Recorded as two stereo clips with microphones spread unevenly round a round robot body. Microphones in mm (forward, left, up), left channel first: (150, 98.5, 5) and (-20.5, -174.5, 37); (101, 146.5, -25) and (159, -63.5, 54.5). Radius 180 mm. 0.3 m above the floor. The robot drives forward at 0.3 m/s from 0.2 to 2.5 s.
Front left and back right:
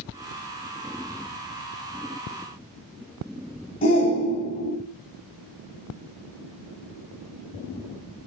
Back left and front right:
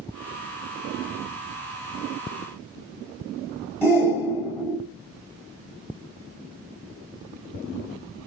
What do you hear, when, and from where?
3.8 s a shout: 100° left, 1.4 m